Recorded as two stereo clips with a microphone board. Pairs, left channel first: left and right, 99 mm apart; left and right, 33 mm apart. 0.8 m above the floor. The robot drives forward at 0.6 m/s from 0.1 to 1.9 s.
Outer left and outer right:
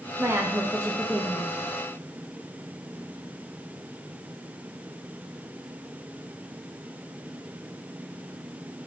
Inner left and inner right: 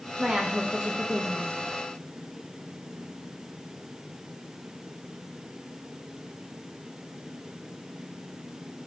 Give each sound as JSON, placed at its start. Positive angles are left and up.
{"t": 0.2, "sound": "a woman speaking", "side_deg": -25, "distance_m": 0.6}